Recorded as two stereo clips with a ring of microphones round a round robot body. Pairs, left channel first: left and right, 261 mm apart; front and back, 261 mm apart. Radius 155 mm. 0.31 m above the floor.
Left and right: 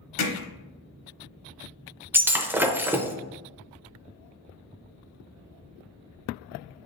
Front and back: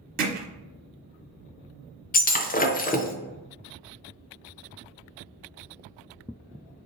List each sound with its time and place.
0.2 s hammering: 120° left, 1.0 m
2.1 s breaking glass: 15° right, 0.6 m